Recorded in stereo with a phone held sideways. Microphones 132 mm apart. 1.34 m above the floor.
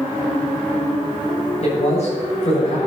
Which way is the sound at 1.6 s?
55° left (ahead or behind).